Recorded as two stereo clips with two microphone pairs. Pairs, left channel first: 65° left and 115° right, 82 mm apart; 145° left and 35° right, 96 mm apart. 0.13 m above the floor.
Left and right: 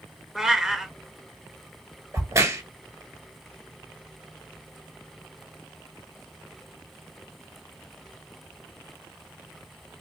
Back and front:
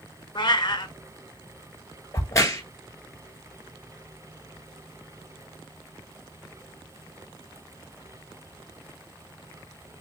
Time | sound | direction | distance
0.3 | a cat meowing | 165° left | 0.6 m
2.1 | a crack | 160° right | 0.8 m